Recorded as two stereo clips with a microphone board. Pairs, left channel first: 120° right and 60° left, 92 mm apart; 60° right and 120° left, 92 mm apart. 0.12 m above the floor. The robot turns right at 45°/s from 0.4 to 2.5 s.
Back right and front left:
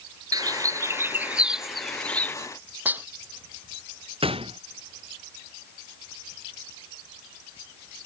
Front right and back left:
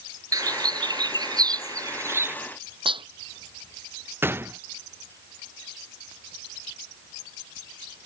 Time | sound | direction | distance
0.3 | a bird | 90° left | ?
2.9 | dishes clattering | 130° left | ?
4.2 | a gunshot | 55° left | ?